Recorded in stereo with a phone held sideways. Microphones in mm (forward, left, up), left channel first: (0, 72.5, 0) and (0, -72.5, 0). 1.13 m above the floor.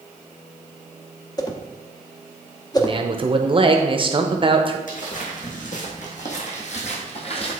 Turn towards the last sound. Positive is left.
turn(degrees=40)  # may be behind; listen again after turning